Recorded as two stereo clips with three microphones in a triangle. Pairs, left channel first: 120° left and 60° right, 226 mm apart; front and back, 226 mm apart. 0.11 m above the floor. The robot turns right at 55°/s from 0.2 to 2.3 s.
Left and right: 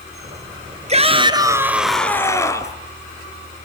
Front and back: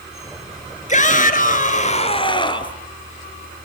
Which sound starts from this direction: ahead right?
A shout, at 0.9 s.